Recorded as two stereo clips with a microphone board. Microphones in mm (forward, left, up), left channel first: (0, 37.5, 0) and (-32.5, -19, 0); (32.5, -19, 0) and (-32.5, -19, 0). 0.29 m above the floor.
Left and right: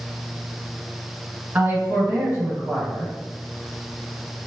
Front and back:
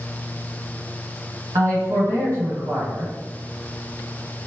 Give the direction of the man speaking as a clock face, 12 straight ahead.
6 o'clock.